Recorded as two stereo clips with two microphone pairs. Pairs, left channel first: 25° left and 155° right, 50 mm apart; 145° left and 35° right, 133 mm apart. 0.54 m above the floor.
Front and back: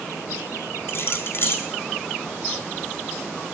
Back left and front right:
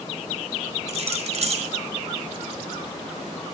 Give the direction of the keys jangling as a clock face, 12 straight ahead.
12 o'clock.